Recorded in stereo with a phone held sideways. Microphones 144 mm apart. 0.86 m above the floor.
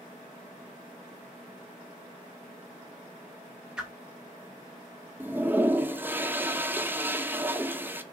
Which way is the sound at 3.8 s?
5° right (ahead or behind).